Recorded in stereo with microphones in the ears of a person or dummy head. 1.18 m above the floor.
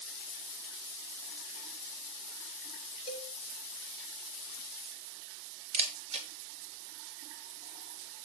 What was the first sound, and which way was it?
A cowbell, 30° left (ahead or behind).